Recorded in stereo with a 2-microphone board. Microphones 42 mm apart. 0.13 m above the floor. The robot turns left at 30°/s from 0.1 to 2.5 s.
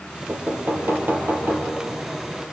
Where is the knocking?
80° right, 3.5 m; by 1.8 s 125° right, 3.5 m.